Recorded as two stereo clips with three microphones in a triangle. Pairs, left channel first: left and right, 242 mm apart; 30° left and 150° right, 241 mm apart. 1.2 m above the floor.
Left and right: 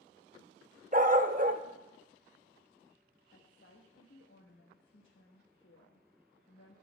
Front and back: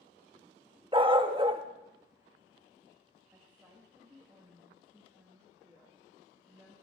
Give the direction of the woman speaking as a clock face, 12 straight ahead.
8 o'clock.